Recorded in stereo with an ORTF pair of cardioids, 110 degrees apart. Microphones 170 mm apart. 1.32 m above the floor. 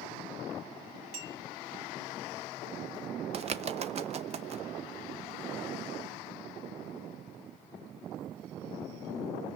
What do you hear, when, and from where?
1.1 s a clink: 60° right, 3.5 m
3.3 s a bird: 40° right, 0.9 m